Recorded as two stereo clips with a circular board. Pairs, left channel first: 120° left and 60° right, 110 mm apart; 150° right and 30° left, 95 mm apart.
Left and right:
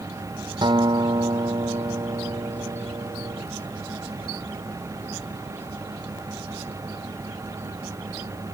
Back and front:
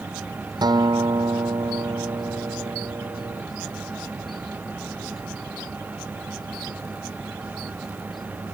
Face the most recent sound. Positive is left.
turn(degrees=-15)